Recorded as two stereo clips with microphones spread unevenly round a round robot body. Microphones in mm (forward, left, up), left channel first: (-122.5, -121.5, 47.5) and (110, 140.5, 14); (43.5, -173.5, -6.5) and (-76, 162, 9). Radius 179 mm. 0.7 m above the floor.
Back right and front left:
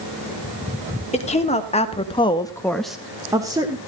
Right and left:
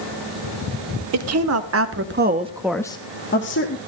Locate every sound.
1.1 s a woman speaking: 155° left, 2.5 m; by 3.8 s 25° right, 1.9 m